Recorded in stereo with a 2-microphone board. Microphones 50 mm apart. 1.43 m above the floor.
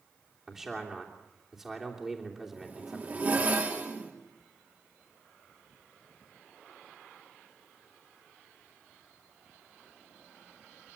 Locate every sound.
0.5 s a man speaking: 10° right (ahead or behind), 3 m
2.5 s a zipper: 35° right (ahead or behind), 3 m